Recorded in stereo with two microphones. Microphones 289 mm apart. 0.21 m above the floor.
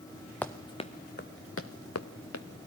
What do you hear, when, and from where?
0.4 s running footsteps: 5° left (ahead or behind), 1.1 m; by 2.5 s 70° left (ahead or behind), 1.6 m